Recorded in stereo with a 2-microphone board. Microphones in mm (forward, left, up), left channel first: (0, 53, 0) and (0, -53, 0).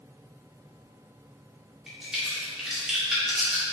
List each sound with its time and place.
1.9 s a crack: 5° right (ahead or behind), 1.0 m